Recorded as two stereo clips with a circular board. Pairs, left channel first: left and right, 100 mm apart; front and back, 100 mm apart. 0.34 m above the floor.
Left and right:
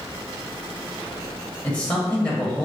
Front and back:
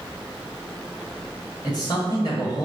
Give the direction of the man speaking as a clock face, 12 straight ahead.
11 o'clock.